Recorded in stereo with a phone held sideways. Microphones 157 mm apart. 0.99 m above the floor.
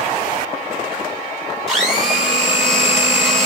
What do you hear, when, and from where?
1.7 s a blender: centre (ahead or behind), 4.5 m